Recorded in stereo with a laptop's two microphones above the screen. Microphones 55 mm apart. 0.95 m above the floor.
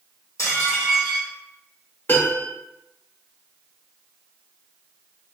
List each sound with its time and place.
0.4 s dishes clattering: 70° left (ahead or behind), 1.9 m
2.1 s a piano: 40° left (ahead or behind), 1.5 m